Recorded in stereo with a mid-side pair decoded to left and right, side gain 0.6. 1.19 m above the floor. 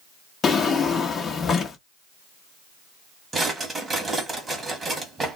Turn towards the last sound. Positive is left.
turn(degrees=-20)